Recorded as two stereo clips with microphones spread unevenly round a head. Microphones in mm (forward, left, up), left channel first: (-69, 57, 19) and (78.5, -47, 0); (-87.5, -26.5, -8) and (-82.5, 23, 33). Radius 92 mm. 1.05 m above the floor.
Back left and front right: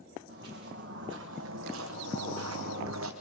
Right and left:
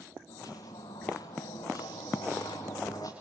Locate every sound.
0.3 s footsteps: 75° right, 4 m; by 3.1 s 25° right, 3 m